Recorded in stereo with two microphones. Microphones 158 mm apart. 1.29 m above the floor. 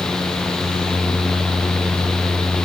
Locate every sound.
Only background noise.